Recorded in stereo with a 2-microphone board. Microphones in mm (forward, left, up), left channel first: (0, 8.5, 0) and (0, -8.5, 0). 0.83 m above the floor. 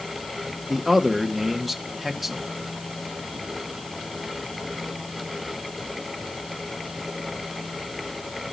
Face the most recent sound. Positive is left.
turn(degrees=-10)  # may be behind; listen again after turning